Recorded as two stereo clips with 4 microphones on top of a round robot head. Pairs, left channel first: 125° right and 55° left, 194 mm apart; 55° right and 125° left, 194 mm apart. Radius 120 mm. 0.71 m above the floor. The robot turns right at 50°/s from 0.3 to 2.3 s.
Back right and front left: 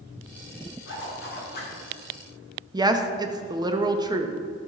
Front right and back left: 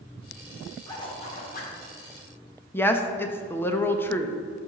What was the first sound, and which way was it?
A zipper, 125° right.